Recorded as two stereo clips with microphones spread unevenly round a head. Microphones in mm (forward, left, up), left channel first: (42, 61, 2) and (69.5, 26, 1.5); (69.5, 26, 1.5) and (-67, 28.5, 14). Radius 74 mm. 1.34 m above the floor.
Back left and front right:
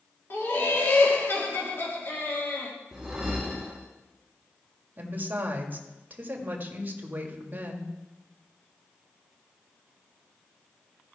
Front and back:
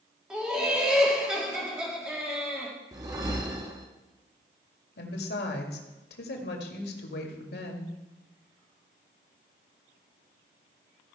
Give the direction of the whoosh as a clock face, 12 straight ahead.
4 o'clock.